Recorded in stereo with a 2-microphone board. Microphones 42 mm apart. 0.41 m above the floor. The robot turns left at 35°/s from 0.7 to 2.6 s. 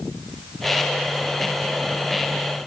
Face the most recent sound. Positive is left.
No sound to turn to.